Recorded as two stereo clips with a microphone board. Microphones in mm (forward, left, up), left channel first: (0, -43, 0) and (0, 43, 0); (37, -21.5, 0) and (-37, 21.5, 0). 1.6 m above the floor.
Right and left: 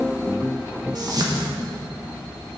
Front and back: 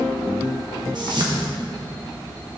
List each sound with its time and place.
0.9 s a whoosh: 125° left, 1.3 m